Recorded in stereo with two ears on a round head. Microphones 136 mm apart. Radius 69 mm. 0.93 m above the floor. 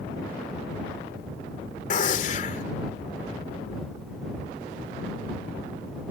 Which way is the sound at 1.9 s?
50° left (ahead or behind).